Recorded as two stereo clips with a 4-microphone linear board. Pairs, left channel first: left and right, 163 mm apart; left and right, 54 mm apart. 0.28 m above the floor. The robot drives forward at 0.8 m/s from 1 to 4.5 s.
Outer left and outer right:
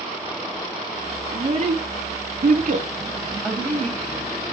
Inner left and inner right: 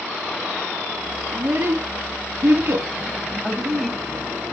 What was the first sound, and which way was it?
A child speaking, 40° right (ahead or behind).